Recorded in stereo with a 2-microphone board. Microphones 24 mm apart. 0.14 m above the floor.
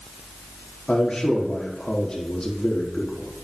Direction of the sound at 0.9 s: 30° left (ahead or behind).